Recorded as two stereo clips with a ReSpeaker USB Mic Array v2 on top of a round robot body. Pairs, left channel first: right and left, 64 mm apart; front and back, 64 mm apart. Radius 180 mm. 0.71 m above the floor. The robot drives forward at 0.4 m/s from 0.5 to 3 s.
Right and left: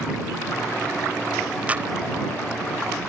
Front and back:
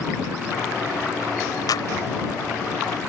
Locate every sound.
1.7 s a clap: 20° left